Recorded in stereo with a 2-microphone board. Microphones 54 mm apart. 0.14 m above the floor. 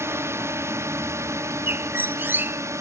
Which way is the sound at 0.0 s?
50° right (ahead or behind).